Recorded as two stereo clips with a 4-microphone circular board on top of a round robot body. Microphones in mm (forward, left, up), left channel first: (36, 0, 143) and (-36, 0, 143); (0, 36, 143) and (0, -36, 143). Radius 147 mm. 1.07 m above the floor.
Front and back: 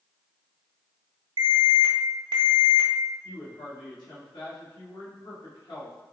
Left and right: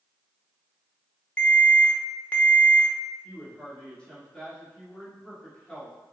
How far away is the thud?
No thud in this recording.